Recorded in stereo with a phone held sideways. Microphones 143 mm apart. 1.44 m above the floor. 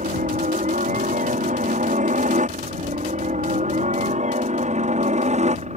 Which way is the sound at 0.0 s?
65° right (ahead or behind).